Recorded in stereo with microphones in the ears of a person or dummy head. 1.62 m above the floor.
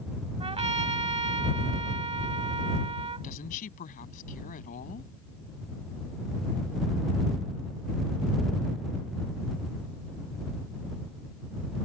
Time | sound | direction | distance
0.4 | a trumpet | 30° right (ahead or behind) | ?
3.2 | a woman speaking | 45° left (ahead or behind) | ?